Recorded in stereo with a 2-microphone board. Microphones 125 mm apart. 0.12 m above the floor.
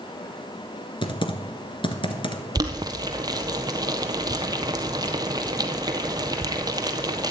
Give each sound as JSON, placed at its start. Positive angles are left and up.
{"t": 1.0, "sound": "typing on a keyboard", "side_deg": 40, "distance_m": 1.7}
{"t": 2.5, "sound": "boiling", "side_deg": -30, "distance_m": 1.3}